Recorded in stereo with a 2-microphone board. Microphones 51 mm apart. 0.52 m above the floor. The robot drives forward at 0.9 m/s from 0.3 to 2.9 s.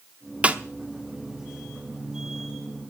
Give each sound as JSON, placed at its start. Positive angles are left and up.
{"t": 0.4, "sound": "a snare drum", "side_deg": -25, "distance_m": 0.9}